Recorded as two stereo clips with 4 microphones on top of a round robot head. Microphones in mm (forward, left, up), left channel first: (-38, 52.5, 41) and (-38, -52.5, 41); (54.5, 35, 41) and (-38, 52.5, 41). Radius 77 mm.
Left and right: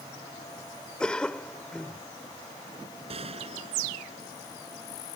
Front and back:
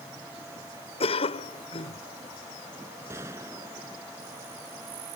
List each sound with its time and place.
1.0 s a cough: 5° left
3.1 s a gunshot: 120° right